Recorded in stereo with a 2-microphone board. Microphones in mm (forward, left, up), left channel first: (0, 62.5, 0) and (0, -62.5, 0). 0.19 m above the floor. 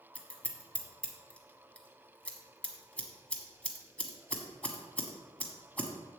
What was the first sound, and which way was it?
Scissors, 10° left (ahead or behind).